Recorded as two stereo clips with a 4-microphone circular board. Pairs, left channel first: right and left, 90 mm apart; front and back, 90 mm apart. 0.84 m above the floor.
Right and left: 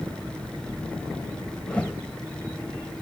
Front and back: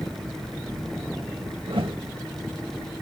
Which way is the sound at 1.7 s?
165° right.